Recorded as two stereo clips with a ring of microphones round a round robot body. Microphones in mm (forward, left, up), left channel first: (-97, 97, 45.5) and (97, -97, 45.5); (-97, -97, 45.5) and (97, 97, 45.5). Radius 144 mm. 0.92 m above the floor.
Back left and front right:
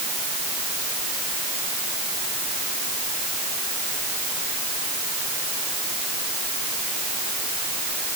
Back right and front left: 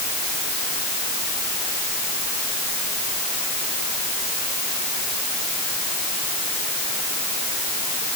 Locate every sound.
Only background noise.